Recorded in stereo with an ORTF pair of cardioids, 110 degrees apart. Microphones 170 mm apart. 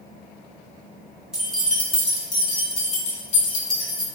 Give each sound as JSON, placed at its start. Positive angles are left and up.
{"t": 1.3, "sound": "keys jangling", "azimuth_deg": -5, "distance_m": 1.3}